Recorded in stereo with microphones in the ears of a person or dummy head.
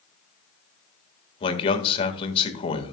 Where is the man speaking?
35° left (ahead or behind), 1.6 m.